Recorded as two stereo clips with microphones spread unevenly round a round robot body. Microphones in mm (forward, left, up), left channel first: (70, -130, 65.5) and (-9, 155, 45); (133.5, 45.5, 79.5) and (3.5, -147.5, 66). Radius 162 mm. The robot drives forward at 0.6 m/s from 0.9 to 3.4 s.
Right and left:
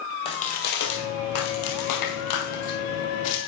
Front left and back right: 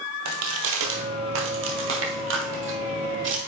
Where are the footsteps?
140° right, 1.2 m; by 3.5 s 85° right, 1.7 m.